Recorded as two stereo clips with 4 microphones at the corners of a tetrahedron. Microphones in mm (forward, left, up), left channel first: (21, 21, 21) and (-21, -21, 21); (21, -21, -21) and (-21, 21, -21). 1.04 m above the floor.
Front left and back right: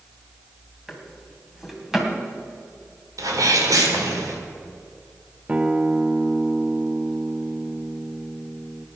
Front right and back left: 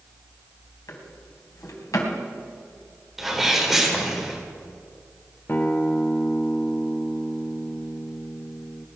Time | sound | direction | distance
0.9 | a drawer | 50° right | 2.5 m
3.2 | a sneeze | 135° right | 3.5 m
5.5 | a guitar | 75° right | 0.8 m